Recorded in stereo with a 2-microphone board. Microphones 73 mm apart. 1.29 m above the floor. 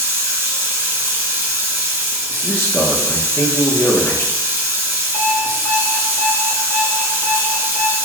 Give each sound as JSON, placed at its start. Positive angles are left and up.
{"t": 0.0, "sound": "running water", "side_deg": -30, "distance_m": 1.1}
{"t": 2.4, "sound": "a man speaking", "side_deg": 30, "distance_m": 1.1}
{"t": 5.1, "sound": "an alarm clock", "side_deg": 30, "distance_m": 1.5}